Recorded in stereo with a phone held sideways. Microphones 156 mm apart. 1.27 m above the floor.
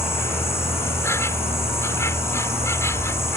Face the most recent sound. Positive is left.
turn(degrees=15)  # may be behind; listen again after turning